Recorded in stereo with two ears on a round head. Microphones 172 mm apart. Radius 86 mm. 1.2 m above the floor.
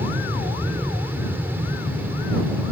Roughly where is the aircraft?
Centre.